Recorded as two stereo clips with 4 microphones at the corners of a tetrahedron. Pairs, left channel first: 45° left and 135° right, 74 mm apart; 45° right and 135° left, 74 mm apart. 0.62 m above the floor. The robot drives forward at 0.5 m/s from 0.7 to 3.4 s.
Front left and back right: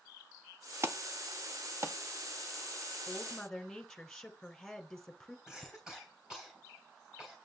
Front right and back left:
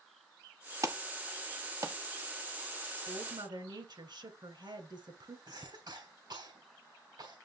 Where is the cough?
145° left, 3 m.